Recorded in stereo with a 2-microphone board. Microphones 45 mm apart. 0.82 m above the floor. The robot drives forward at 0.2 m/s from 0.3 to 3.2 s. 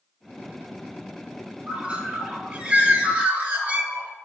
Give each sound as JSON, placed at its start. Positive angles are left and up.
{"t": 1.7, "sound": "a bird", "side_deg": -30, "distance_m": 1.1}